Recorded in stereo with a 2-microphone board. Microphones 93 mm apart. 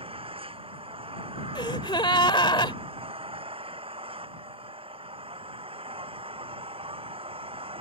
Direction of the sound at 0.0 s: 85° right.